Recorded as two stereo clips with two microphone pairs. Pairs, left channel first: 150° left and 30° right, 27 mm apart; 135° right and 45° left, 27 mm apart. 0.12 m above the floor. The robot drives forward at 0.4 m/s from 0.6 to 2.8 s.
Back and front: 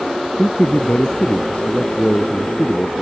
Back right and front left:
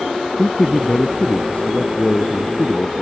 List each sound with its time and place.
0.4 s a man speaking: straight behind